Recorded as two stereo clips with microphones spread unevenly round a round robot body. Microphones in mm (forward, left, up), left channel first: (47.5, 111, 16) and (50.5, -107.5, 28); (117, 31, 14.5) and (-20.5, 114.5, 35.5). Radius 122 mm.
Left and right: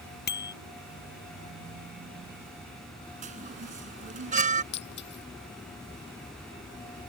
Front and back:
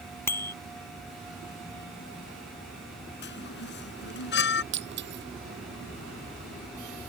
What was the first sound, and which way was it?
A bicycle bell, 45° left.